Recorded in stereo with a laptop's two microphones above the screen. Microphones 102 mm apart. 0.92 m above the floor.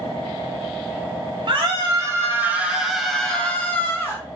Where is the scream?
45° right (ahead or behind), 1.1 m; by 4.2 s 25° left (ahead or behind), 1.6 m.